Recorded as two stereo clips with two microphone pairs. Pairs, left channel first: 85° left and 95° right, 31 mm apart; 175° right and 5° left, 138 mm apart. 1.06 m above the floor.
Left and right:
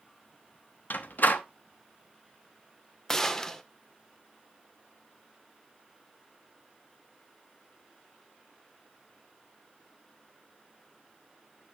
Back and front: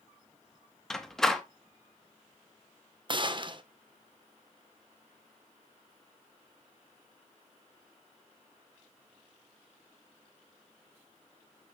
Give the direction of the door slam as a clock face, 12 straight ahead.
9 o'clock.